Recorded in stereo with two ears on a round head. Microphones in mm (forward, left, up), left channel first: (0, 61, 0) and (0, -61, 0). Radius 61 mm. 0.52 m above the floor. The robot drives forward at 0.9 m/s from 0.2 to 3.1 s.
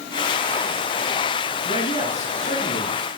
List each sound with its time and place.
1.6 s a man speaking: 60° left (ahead or behind), 6 m; by 3.0 s 50° left (ahead or behind), 6.5 m